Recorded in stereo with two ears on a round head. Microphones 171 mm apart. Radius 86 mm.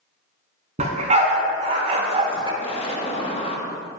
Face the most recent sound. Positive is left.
turn(degrees=30)  # may be behind; listen again after turning